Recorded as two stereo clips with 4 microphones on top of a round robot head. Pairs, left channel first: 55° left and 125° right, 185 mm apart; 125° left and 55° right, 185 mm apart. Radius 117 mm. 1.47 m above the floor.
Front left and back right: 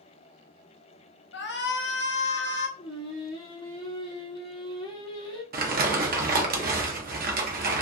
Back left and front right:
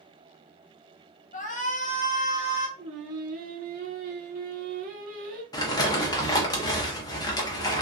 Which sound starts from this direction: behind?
Crumpling, at 5.5 s.